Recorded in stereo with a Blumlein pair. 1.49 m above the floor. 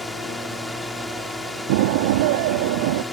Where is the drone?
5° left.